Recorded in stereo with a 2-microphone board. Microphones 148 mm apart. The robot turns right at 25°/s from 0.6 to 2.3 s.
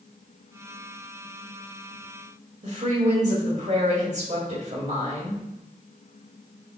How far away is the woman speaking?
About 1.8 m.